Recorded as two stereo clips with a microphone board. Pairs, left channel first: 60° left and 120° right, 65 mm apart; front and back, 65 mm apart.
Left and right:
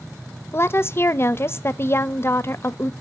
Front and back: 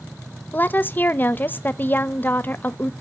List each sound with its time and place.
0.5 s a woman speaking: 40° left, 0.6 m